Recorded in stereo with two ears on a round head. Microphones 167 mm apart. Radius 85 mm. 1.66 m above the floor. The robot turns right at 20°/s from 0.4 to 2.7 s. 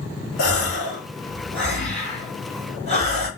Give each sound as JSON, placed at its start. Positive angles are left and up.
{"t": 0.4, "sound": "a gasp", "azimuth_deg": 60, "distance_m": 2.5}